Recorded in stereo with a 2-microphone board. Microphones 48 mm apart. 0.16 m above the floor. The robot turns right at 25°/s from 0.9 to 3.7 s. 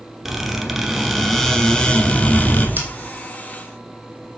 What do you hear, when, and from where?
0.2 s a squeak: 5° right, 1.1 m; by 2.7 s 40° left, 1.1 m
2.8 s scissors: 45° right (ahead or behind), 2 m; by 2.9 s 40° right (ahead or behind), 2 m